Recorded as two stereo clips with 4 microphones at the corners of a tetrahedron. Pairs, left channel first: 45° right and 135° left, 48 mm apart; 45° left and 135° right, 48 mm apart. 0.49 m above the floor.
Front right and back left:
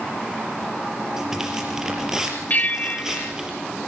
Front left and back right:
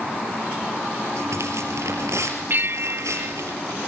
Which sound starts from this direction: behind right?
Tearing paper, at 1.2 s.